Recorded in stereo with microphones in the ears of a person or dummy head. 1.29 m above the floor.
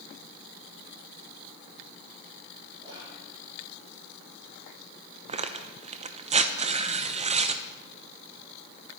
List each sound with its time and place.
2.8 s whispering: 20° right (ahead or behind), 3 m
5.3 s tearing paper: 30° right (ahead or behind), 0.7 m